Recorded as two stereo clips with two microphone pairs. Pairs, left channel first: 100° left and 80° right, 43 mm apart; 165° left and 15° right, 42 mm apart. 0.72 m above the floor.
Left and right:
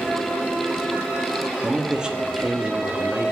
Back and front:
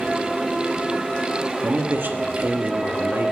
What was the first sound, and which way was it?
A man speaking, 20° right.